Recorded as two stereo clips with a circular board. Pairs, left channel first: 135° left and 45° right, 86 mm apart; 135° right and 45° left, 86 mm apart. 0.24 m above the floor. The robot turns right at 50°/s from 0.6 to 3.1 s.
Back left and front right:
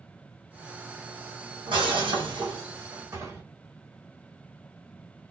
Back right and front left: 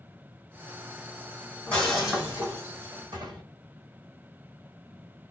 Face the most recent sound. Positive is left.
turn(degrees=15)